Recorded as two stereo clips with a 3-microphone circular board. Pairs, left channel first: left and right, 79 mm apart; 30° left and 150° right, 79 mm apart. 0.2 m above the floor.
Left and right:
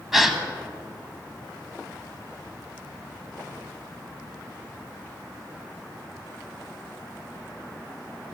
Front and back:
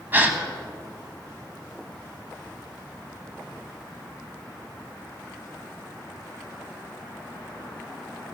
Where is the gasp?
175° right, 1.2 m.